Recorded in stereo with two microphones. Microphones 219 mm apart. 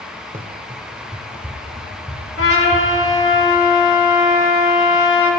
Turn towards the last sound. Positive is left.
turn(degrees=70)  # may be behind; listen again after turning